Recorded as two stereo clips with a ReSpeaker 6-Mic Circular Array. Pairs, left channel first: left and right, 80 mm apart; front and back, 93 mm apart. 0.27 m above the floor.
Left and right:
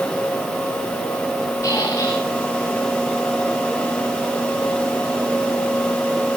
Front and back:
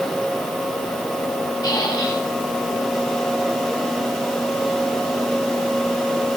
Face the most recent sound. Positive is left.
turn(degrees=45)